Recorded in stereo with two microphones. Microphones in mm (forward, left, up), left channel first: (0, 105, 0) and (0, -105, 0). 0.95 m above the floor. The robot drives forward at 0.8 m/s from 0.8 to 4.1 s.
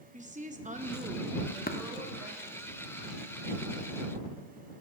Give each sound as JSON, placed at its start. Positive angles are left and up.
{"t": 0.1, "sound": "a woman speaking", "side_deg": -35, "distance_m": 0.8}
{"t": 1.7, "sound": "tapping", "side_deg": 45, "distance_m": 0.9}